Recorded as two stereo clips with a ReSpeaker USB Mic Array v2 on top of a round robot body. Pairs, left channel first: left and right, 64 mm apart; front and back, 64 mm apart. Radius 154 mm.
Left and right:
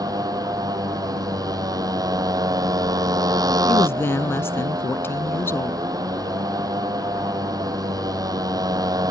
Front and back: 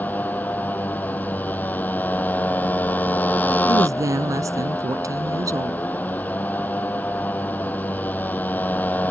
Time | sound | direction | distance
0.0 | a motorcycle | 65° right | ?
3.7 | a woman speaking | 145° left | ?